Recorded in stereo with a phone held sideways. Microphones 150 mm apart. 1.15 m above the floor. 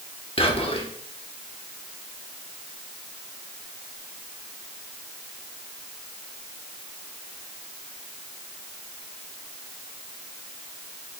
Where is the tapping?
No tapping in this recording.